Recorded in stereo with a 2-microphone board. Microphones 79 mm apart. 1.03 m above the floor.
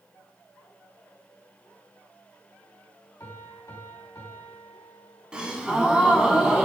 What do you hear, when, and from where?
3.2 s a piano: 40° left (ahead or behind), 2.5 m
5.3 s a gasp: 10° right (ahead or behind), 1.4 m